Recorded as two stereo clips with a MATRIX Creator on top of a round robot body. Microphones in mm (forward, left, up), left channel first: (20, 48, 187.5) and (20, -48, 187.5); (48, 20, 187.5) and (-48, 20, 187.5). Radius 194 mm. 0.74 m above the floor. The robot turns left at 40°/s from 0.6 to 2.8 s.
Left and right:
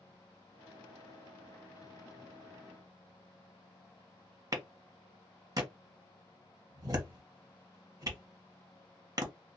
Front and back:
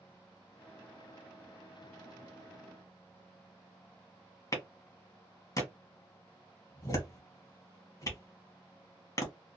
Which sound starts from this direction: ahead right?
A clap, at 4.5 s.